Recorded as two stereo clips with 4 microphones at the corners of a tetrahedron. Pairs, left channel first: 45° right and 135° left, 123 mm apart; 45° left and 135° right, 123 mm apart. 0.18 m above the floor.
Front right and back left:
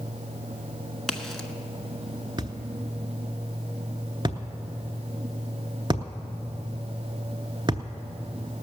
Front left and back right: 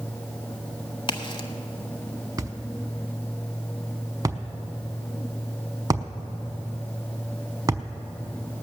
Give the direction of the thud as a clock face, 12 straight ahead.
6 o'clock.